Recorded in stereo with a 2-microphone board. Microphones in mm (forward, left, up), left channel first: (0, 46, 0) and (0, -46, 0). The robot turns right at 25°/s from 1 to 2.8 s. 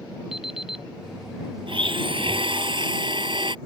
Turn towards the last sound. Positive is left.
turn(degrees=-65)  # may be behind; listen again after turning